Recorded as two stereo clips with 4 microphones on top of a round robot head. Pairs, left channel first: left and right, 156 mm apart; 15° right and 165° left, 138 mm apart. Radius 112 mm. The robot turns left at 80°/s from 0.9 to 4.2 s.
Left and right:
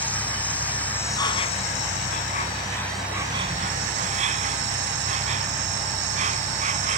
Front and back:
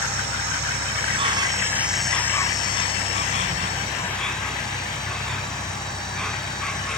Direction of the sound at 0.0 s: 165° left.